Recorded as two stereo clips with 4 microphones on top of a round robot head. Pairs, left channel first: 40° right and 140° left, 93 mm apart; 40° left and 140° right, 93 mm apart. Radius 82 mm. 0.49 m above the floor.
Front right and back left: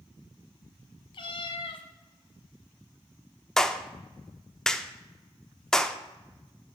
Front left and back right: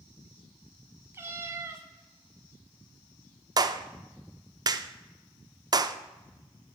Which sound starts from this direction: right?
A cat meowing, at 1.1 s.